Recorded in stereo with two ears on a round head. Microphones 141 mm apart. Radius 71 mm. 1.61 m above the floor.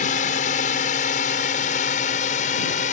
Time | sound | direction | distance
0.0 | a drone | 50° left (ahead or behind) | ?